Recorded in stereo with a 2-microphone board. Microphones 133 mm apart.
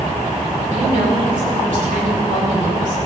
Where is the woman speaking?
85° right, 4 m.